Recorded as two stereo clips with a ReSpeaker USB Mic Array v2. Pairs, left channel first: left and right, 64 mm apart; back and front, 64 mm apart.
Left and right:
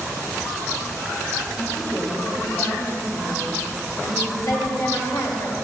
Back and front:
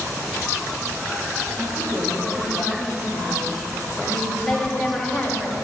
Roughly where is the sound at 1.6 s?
Ahead left.